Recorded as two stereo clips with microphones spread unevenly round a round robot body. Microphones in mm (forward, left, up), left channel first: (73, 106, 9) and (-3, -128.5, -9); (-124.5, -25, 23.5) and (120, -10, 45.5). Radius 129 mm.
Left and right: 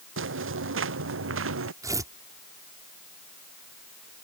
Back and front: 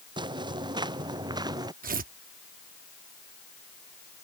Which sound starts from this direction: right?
Footsteps, at 0.2 s.